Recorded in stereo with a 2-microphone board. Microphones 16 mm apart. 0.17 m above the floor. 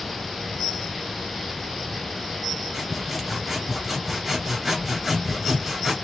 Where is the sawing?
10° right (ahead or behind), 2 m.